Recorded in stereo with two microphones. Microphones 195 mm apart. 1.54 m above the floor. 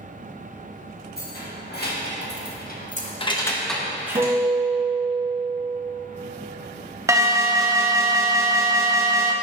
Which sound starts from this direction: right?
A guitar, at 4.2 s.